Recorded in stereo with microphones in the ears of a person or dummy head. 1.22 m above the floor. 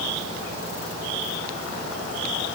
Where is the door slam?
No door slam in this recording.